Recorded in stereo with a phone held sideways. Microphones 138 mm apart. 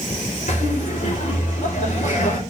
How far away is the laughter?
About 4.5 m.